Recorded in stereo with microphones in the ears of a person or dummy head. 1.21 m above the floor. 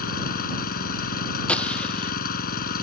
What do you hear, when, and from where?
0.0 s an engine running: 50° left (ahead or behind)
1.5 s a gunshot: 10° left (ahead or behind)